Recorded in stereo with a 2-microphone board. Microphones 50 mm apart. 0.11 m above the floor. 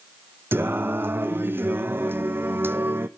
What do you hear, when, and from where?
0.5 s singing: 45° right (ahead or behind), 0.8 m